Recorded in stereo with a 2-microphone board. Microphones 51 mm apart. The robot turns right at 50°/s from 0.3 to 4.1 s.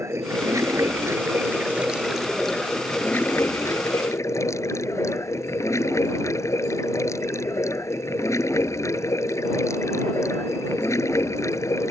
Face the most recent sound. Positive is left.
turn(degrees=90)